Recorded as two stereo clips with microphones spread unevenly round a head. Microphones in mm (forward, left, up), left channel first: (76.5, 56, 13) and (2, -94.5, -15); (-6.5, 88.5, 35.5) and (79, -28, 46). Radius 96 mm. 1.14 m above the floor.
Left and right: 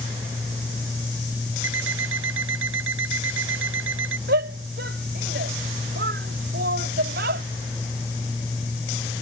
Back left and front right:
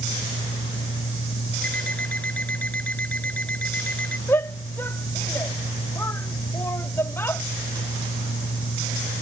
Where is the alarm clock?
150° right.